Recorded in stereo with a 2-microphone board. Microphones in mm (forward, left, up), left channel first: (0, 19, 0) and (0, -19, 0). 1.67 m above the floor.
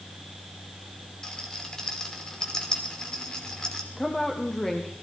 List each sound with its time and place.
1.2 s a rattle: 20° left (ahead or behind), 2.5 m
4.0 s a woman speaking: 10° left (ahead or behind), 1.4 m